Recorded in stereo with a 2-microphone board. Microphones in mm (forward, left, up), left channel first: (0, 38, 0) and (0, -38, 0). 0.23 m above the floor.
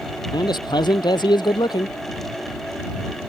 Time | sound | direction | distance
0.3 | a man speaking | 80° left | ?